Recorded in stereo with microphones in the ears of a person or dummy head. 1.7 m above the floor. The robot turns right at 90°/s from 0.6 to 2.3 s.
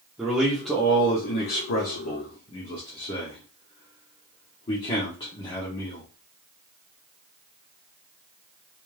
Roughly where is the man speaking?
Centre.